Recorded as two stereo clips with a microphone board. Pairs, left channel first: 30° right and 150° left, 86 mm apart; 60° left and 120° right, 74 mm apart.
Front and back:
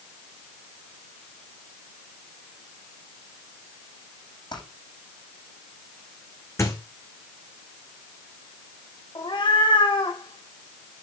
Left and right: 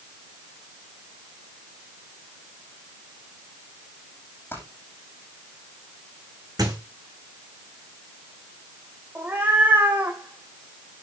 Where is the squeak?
85° right, 4 m.